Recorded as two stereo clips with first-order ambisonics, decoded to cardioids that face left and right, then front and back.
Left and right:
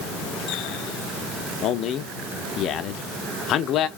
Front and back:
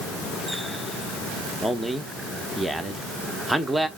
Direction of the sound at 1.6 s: 100° left.